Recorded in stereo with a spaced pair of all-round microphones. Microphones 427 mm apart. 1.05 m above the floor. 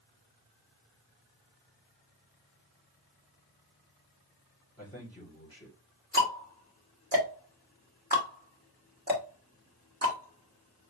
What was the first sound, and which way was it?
A man speaking, 10° left (ahead or behind).